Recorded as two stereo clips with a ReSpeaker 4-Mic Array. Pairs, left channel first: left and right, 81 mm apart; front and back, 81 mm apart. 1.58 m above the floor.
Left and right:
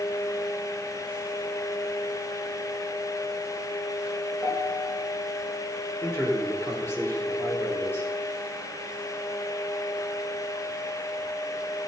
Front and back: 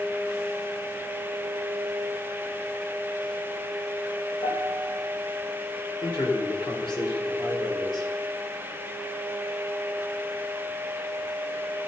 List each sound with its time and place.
4.4 s a piano: straight ahead, 5.5 m
6.0 s a man speaking: 30° left, 5 m